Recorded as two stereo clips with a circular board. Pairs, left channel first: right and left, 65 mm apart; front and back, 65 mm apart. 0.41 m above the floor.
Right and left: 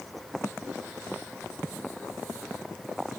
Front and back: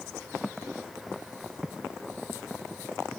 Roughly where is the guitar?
No guitar in this recording.